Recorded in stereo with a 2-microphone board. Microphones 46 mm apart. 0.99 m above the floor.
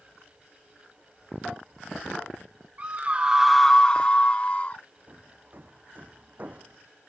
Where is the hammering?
40° right (ahead or behind).